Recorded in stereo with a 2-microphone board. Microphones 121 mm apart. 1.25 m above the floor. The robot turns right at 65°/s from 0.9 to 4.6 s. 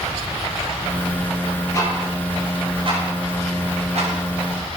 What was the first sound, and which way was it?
Ticking, 25° left (ahead or behind).